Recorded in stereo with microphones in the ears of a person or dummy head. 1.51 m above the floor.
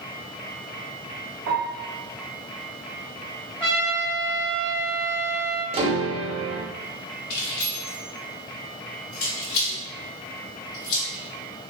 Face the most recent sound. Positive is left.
turn(degrees=45)  # may be behind; listen again after turning